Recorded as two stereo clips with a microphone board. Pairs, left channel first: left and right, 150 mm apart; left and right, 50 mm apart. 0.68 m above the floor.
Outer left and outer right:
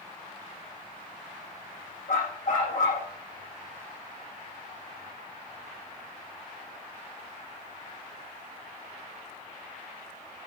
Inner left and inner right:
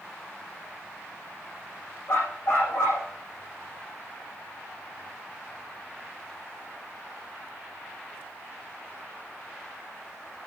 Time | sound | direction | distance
2.1 | a dog barking | 65° left (ahead or behind) | 9 m